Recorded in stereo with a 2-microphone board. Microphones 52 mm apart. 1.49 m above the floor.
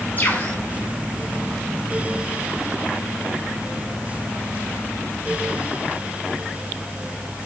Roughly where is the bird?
Left.